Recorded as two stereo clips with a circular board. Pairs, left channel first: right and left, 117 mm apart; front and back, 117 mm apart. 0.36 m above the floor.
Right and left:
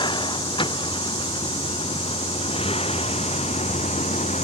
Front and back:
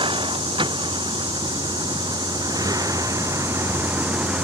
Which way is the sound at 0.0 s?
135° right.